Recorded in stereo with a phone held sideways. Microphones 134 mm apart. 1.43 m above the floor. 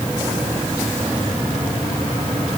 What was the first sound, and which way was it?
Only background noise.